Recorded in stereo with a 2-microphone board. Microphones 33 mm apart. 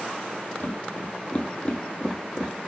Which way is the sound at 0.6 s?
55° left (ahead or behind).